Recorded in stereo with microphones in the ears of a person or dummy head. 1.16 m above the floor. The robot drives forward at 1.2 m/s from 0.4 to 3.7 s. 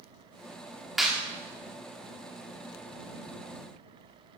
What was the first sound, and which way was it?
A clap, centre (ahead or behind).